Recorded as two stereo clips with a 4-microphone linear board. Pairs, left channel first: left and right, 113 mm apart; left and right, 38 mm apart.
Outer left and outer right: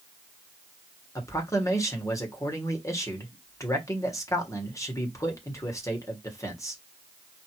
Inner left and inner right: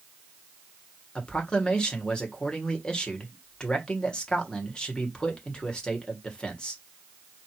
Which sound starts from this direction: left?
A man speaking, at 1.1 s.